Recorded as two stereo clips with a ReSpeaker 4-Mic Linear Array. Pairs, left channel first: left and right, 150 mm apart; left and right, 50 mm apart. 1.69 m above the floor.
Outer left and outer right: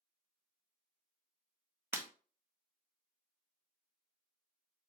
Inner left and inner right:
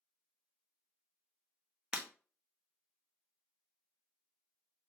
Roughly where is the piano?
No piano in this recording.